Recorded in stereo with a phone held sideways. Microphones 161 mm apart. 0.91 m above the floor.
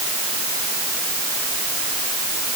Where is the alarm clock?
No alarm clock in this recording.